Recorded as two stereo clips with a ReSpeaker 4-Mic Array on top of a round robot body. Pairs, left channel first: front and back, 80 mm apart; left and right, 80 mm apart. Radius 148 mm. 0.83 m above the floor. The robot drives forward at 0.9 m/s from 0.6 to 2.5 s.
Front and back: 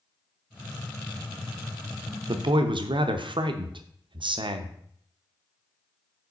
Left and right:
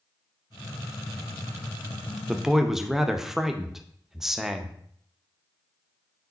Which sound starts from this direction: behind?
A man speaking, at 2.3 s.